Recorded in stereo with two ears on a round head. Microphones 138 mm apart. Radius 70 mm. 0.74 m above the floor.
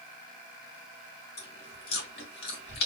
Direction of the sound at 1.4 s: 75° left (ahead or behind).